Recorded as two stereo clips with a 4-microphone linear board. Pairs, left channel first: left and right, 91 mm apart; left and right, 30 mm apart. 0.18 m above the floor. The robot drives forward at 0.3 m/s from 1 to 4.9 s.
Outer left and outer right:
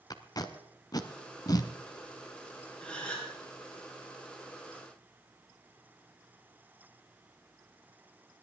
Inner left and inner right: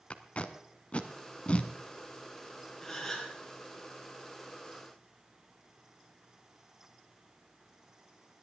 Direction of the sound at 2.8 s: 10° left (ahead or behind).